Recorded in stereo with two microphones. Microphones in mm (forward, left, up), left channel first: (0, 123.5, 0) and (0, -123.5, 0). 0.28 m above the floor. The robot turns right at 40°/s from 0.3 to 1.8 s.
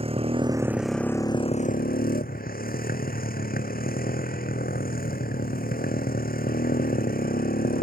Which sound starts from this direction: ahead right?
A motorcycle, at 0.0 s.